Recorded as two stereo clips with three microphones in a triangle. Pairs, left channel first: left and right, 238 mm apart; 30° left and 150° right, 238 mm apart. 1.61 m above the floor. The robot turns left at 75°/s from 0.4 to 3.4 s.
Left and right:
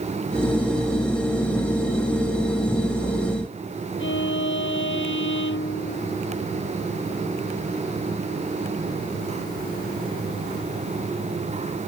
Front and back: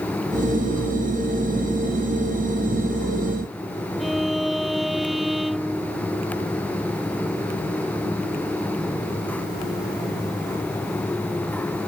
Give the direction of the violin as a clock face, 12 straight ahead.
8 o'clock.